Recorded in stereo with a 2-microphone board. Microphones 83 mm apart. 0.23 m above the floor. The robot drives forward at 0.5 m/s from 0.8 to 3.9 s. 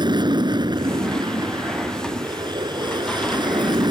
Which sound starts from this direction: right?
An aircraft, at 0.0 s.